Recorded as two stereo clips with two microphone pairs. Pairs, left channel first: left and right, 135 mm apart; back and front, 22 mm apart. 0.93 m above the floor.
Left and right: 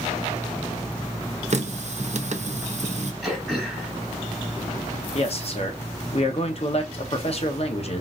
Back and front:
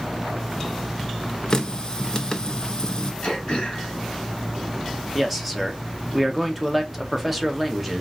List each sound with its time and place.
1.5 s a running tap: 125° right, 0.5 m
3.2 s throat clearing: straight behind, 1.6 m
5.2 s a man speaking: 75° left, 0.9 m